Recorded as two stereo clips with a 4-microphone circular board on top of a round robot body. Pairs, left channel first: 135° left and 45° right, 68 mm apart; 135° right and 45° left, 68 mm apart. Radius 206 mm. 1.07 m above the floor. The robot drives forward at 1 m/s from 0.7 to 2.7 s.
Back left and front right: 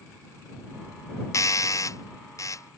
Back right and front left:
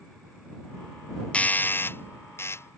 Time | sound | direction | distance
1.3 | a doorbell | 160° left | ?